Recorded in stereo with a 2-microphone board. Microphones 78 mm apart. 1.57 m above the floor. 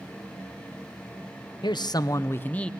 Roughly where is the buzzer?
I don't hear a buzzer.